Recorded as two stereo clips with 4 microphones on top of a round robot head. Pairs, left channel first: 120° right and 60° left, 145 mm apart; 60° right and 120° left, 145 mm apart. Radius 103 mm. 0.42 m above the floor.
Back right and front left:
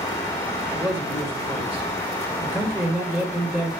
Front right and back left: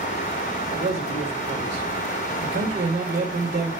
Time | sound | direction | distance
0.7 | a man speaking | 150° left | 2 m